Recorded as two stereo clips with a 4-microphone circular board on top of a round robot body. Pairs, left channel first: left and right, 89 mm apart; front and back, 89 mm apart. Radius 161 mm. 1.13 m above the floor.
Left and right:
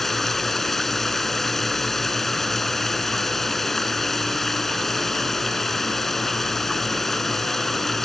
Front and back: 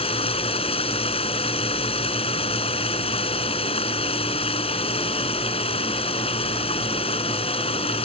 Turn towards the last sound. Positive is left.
turn(degrees=0)